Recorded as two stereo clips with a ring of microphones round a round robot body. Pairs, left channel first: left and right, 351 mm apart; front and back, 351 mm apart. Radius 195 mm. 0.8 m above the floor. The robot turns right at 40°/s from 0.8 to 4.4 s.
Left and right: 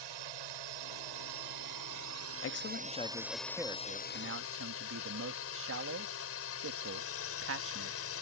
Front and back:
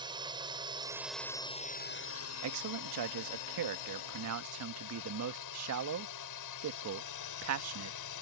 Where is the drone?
105° right; by 8.2 s 40° left.